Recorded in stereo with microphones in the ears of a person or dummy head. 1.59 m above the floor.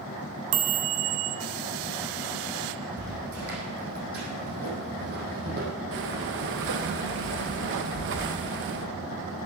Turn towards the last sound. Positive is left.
turn(degrees=-65)  # may be behind; listen again after turning